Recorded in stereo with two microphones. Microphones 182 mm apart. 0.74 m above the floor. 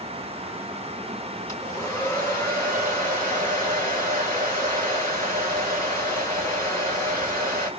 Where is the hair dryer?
15° left (ahead or behind), 3 m.